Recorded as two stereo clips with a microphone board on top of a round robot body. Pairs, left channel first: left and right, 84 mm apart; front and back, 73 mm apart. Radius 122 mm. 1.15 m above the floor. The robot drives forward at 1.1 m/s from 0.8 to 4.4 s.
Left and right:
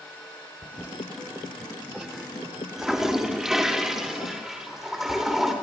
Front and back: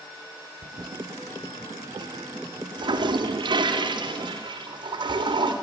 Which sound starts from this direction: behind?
A toilet flushing, at 0.6 s.